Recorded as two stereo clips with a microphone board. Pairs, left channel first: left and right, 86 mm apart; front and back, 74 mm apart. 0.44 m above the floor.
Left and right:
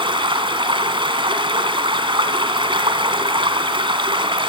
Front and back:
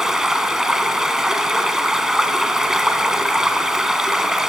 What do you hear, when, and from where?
0.0 s running water: 100° right, 2 m